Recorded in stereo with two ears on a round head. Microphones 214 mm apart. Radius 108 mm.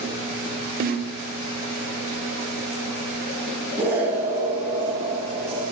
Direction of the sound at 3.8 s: 10° right (ahead or behind).